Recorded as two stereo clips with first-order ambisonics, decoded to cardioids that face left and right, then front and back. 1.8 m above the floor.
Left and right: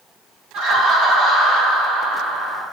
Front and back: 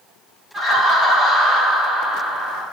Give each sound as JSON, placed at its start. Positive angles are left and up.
{"t": 0.5, "sound": "laughter", "azimuth_deg": -120, "distance_m": 1.0}